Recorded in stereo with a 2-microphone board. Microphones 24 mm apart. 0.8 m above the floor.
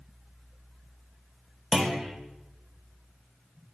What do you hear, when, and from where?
1.7 s a clunk: 25° right (ahead or behind), 0.8 m